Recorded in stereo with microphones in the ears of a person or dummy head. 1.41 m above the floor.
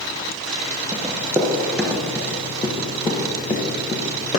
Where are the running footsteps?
20° right (ahead or behind), 1.6 m; by 4.4 s 35° left (ahead or behind), 2 m.